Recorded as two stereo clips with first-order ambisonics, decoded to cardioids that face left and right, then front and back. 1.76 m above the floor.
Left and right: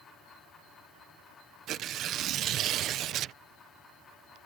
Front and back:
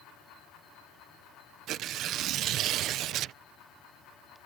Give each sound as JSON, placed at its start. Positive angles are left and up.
{"t": 1.7, "sound": "tearing paper", "azimuth_deg": -135}